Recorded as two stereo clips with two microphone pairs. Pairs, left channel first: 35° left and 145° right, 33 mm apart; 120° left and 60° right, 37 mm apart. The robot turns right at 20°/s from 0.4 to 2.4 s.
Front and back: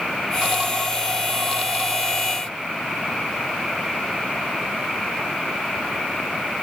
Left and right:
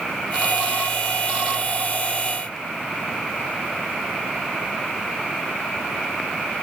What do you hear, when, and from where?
Only background noise.